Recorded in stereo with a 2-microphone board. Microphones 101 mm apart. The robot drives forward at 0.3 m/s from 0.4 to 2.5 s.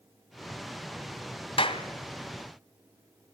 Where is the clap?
60° left (ahead or behind), 2 m.